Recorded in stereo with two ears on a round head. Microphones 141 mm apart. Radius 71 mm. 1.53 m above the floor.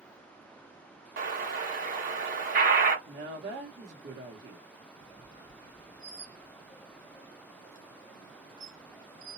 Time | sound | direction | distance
1.2 | an explosion | 60° right (ahead or behind) | 1.1 m
3.0 | a woman speaking | 75° right (ahead or behind) | 1.2 m
5.0 | a squeak | 25° right (ahead or behind) | 0.8 m